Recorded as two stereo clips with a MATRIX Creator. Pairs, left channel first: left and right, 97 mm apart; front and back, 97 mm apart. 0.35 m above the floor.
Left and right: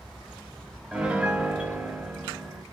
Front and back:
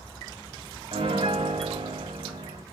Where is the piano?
170° right, 0.5 m.